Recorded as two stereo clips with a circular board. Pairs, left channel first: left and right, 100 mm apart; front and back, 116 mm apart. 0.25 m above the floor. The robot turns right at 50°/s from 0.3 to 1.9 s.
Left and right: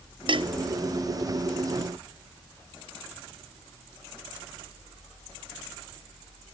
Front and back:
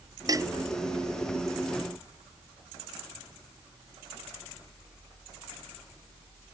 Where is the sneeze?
I don't hear a sneeze.